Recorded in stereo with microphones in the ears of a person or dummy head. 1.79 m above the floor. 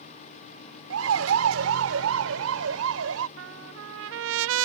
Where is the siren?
85° right.